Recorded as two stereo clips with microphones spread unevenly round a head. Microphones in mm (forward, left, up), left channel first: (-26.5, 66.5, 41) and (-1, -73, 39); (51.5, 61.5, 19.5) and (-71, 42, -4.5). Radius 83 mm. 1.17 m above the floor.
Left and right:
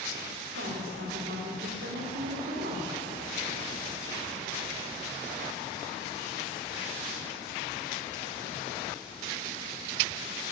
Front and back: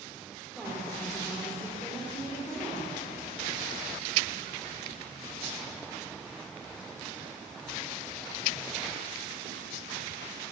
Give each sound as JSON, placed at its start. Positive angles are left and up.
{"t": 0.6, "sound": "a woman speaking", "azimuth_deg": -80, "distance_m": 3.5}